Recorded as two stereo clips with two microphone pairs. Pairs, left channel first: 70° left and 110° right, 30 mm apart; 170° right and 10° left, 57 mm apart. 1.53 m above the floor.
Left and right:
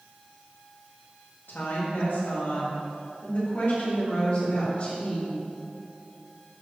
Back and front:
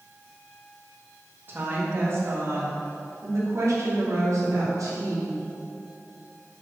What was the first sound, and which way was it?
A woman speaking, 60° left.